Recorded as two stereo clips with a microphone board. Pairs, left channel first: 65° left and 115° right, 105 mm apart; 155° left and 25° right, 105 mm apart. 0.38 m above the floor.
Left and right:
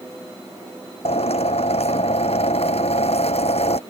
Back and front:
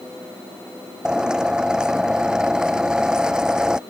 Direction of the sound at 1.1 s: 60° left.